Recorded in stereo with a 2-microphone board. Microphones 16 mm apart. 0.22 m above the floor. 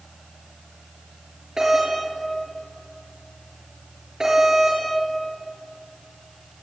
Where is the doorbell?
40° right (ahead or behind), 6.5 m.